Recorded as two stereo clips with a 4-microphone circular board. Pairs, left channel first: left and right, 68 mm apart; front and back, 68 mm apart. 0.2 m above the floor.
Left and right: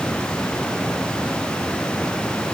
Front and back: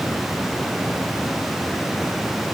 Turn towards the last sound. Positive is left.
No sound to turn to.